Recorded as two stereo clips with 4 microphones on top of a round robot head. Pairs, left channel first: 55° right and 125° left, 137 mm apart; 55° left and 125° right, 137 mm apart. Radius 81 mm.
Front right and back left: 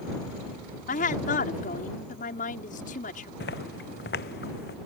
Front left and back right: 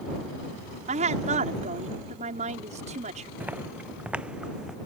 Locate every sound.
0.9 s a woman speaking: 85° right
3.4 s footsteps: 45° right; by 4.8 s 40° right